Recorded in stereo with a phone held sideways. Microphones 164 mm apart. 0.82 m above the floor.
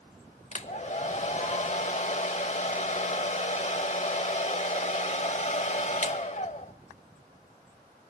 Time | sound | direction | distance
0.5 | a hair dryer | 45° left (ahead or behind) | 0.7 m